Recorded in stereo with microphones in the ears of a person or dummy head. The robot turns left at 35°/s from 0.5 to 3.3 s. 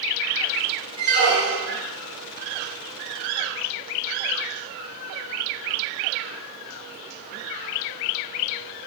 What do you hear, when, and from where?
1.0 s a squeak: 55° right (ahead or behind), 1.0 m; by 1.8 s 65° right (ahead or behind), 1.0 m